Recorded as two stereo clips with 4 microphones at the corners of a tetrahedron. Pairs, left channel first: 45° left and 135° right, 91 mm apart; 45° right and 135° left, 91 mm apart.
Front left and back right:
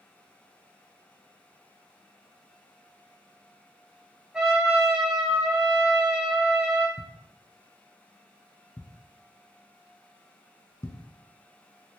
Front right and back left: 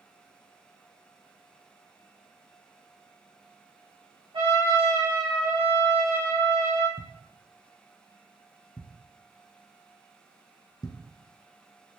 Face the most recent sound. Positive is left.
turn(degrees=-5)